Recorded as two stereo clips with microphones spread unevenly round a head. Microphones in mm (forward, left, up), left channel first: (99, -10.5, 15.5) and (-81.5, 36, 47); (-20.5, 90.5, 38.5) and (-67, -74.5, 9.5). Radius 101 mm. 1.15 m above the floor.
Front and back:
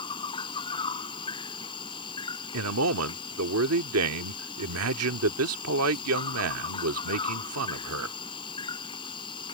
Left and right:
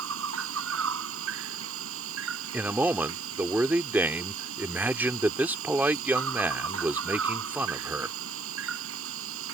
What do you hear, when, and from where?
0.0 s an insect: 85° right
2.5 s a man speaking: 170° left